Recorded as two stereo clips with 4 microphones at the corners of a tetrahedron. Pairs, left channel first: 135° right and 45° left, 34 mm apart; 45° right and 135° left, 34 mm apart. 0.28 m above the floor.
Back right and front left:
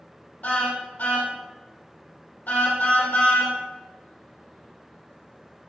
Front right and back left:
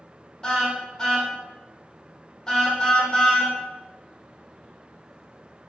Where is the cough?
I don't hear a cough.